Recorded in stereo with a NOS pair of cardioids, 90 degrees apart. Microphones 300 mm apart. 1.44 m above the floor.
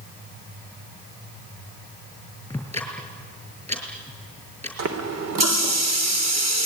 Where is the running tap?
60° right, 3 m.